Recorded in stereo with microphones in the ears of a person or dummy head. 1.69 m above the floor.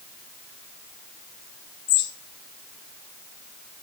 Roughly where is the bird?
Left.